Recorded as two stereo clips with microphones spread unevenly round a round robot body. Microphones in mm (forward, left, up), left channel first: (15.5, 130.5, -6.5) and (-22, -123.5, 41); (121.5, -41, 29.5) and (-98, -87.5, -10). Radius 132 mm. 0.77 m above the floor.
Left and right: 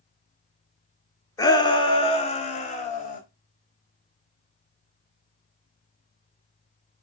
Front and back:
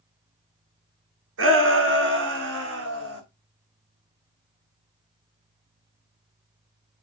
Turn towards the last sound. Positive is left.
turn(degrees=145)